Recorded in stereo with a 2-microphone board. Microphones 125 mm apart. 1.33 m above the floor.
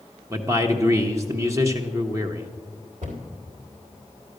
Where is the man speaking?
25° right (ahead or behind), 1.0 m.